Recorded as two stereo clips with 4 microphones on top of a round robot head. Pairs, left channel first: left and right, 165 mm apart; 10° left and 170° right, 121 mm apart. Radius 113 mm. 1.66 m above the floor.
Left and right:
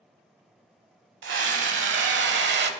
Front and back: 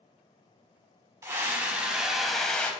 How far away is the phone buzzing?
I don't hear a phone buzzing.